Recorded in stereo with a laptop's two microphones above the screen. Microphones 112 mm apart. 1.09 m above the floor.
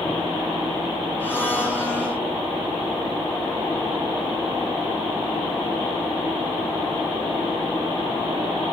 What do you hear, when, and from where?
1.2 s a blender: 20° left (ahead or behind), 7 m